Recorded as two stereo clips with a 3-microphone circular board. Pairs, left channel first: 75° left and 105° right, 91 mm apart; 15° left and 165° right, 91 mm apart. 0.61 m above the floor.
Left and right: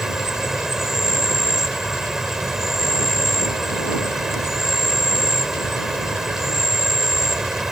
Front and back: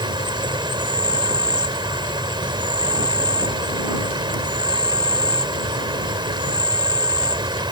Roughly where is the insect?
Behind.